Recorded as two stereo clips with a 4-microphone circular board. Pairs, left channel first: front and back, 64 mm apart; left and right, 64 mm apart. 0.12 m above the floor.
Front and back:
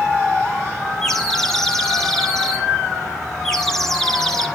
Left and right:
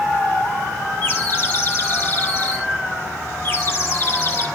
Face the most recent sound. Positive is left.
turn(degrees=80)